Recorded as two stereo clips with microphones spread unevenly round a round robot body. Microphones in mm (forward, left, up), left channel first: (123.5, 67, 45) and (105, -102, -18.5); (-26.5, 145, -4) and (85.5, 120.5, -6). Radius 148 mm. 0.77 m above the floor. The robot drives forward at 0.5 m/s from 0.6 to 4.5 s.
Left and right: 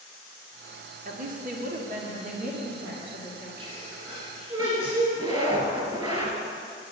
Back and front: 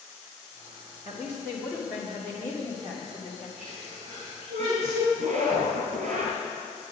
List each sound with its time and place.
1.1 s a woman speaking: 90° right, 1.6 m; by 3.5 s 130° right, 2 m
3.6 s a sneeze: 30° right, 4 m; by 5.0 s 35° right, 3.5 m
5.2 s a zipper: 30° right, 2.5 m